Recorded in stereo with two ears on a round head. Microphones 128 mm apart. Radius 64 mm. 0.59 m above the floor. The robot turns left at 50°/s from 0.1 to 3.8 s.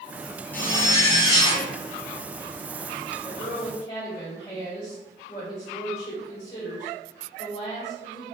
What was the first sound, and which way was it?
A zipper, 150° left.